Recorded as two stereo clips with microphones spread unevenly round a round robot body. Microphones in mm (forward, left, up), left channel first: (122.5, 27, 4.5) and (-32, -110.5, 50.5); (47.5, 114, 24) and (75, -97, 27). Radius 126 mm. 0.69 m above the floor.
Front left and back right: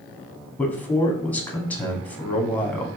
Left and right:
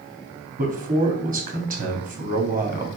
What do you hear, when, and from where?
0.6 s a man speaking: 35° right, 1.3 m